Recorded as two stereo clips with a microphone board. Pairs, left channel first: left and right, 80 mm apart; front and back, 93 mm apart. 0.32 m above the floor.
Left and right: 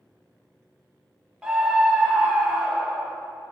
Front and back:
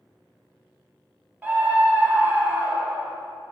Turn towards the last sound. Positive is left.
turn(degrees=-150)